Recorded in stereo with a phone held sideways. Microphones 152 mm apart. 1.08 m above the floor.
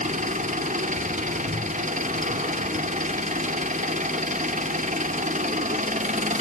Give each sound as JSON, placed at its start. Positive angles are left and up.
{"t": 0.0, "sound": "an engine running", "side_deg": -55, "distance_m": 2.5}